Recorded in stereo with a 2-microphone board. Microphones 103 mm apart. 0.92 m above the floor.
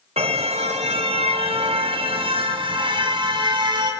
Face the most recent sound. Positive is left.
turn(degrees=-45)  # may be behind; listen again after turning